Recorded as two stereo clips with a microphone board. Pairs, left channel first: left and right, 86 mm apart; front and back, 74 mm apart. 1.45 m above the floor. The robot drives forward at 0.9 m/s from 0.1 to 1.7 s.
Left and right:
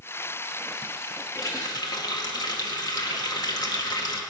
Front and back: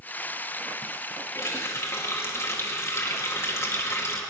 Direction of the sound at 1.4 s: 45° left.